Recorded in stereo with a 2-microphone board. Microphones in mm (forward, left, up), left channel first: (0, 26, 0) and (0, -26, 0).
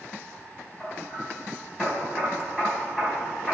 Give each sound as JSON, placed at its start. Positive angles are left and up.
{"t": 0.8, "sound": "hammering", "side_deg": -5, "distance_m": 3.5}